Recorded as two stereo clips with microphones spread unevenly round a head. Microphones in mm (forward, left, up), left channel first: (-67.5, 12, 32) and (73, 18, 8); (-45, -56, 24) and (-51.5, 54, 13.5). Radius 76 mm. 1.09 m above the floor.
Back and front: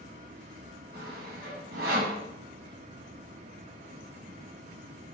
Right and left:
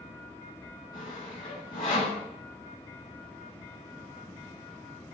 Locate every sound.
0.9 s sawing: 25° right, 9 m